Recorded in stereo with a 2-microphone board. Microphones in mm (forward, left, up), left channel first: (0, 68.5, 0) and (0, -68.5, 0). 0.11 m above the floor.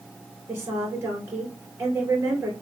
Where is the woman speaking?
20° right (ahead or behind), 2.5 m.